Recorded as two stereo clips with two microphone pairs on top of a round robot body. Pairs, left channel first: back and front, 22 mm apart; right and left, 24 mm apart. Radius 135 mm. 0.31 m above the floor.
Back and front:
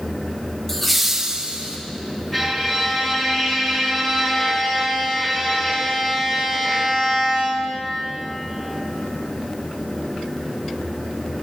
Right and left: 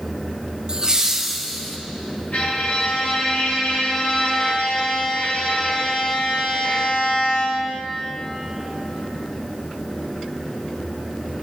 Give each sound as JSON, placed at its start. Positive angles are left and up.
{"t": 0.7, "sound": "laughter", "azimuth_deg": 120, "distance_m": 1.2}
{"t": 2.3, "sound": "a violin", "azimuth_deg": -105, "distance_m": 3.5}